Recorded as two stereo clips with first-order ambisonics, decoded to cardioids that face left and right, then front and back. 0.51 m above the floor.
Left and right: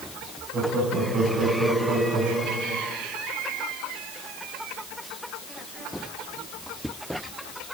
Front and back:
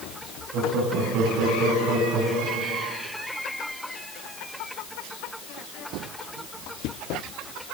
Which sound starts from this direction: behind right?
Laughter, at 0.5 s.